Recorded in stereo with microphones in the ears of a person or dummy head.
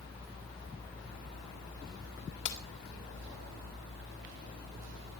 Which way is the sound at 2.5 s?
75° left (ahead or behind).